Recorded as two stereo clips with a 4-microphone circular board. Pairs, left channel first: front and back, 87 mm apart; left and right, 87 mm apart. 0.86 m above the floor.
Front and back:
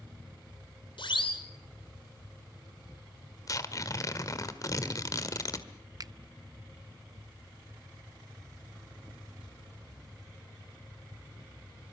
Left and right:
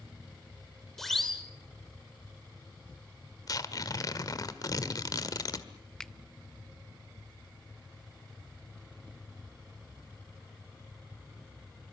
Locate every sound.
1.0 s a siren: 5° left, 3 m
3.5 s tearing paper: 45° left, 1.6 m
6.0 s a finger snap: 170° left, 0.7 m